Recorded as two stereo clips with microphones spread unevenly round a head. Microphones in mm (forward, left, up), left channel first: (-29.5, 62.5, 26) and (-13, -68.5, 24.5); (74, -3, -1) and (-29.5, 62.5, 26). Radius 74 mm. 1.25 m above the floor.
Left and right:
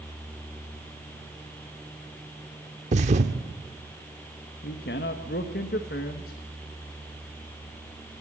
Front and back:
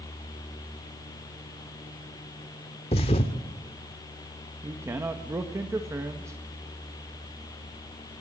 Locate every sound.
2.9 s a thud: 80° right, 1.0 m
4.6 s a man speaking: 80° left, 1.3 m